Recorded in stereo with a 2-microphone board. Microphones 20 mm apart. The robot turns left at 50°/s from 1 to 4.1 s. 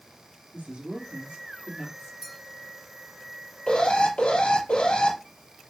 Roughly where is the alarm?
Left.